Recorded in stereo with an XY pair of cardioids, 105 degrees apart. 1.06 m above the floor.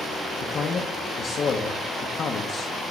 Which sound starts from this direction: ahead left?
A man speaking, at 0.4 s.